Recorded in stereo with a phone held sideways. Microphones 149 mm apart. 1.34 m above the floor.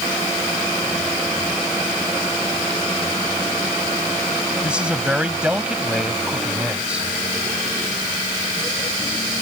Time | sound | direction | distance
4.6 | a man speaking | 5° right (ahead or behind) | ?